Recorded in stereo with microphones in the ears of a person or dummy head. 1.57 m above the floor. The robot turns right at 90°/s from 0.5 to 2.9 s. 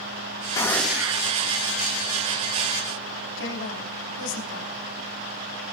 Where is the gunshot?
150° left, 1.5 m; by 1.3 s 140° right, 1.5 m.